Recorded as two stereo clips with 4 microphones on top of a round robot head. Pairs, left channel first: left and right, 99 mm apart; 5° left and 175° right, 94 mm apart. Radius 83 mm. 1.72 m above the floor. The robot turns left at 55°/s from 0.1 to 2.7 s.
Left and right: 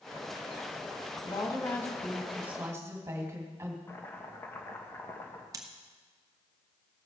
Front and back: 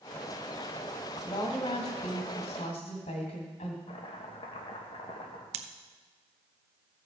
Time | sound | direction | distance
1.2 | a woman speaking | 55° left | 2.5 m
3.9 | chopping | 25° left | 1.4 m
5.5 | scissors | 155° right | 0.7 m